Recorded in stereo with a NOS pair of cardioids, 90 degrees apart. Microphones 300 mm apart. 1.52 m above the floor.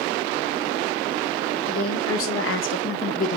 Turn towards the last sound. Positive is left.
turn(degrees=25)